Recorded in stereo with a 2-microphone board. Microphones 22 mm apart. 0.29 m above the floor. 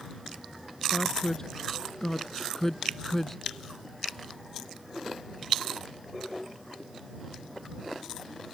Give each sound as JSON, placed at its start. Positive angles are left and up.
{"t": 0.9, "sound": "a woman speaking", "side_deg": 35}